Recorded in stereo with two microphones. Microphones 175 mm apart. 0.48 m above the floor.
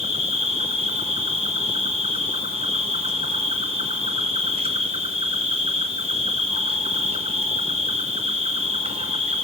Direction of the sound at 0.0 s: 35° right (ahead or behind).